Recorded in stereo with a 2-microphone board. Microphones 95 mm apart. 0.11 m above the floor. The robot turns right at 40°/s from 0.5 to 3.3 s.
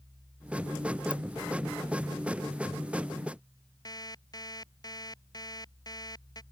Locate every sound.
1.1 s a ringtone: 55° left (ahead or behind); by 1.1 s 50° left (ahead or behind)
3.9 s an alarm clock: 45° left (ahead or behind)